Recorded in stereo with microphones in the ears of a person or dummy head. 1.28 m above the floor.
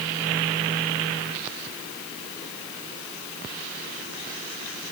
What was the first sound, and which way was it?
Only background noise.